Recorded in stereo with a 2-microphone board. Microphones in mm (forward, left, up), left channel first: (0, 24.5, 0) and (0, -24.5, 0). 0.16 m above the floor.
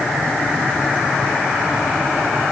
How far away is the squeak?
I don't hear a squeak.